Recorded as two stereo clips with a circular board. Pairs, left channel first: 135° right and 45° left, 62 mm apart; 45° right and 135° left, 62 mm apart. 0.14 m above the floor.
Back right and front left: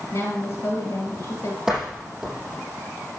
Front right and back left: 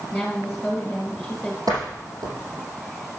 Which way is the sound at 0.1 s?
130° right.